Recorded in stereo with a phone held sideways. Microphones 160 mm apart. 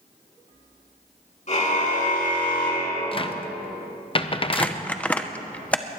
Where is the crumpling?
10° left (ahead or behind), 0.7 m.